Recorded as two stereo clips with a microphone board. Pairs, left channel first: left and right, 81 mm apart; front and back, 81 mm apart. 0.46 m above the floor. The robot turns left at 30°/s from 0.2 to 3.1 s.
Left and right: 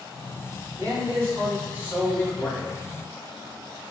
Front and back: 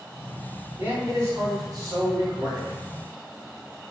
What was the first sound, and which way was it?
A man speaking, 125° right.